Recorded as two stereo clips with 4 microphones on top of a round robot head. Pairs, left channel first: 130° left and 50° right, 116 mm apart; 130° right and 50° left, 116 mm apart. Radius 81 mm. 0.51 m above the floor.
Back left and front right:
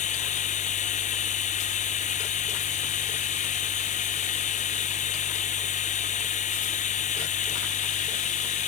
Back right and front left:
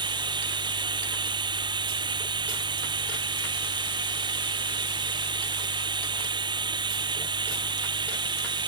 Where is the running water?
105° left.